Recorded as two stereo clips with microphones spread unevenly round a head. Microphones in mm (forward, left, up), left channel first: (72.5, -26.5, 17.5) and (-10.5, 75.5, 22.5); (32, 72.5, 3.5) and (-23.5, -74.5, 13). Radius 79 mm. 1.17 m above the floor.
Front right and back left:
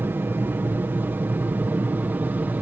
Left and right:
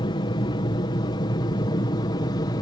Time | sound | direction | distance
0.0 | an aircraft | 70° left | ?